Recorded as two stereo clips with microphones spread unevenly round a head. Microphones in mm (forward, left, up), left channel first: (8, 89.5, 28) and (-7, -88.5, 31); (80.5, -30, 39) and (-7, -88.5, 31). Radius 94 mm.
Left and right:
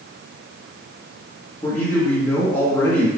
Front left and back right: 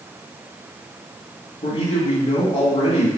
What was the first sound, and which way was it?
A man speaking, 5° left.